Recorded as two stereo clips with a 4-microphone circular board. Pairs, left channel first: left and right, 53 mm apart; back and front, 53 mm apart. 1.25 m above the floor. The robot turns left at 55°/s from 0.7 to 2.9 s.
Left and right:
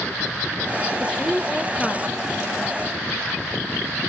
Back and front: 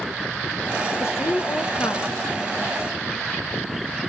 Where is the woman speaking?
150° right, 1.2 m; by 2.2 s 140° left, 1.2 m.